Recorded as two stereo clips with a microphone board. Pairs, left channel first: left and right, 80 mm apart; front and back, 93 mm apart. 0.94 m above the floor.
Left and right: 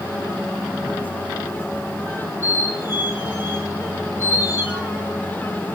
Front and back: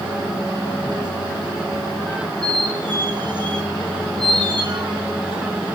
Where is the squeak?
150° right, 2.5 m.